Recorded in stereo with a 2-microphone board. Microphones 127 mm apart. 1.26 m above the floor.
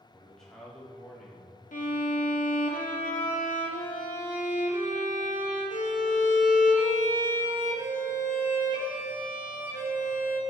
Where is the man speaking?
5° left (ahead or behind), 3 m.